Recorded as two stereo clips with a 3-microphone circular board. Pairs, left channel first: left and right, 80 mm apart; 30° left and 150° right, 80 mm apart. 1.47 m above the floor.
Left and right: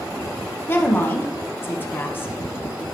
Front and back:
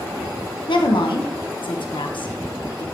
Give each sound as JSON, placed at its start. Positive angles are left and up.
{"t": 0.7, "sound": "a woman speaking", "azimuth_deg": 30, "distance_m": 0.9}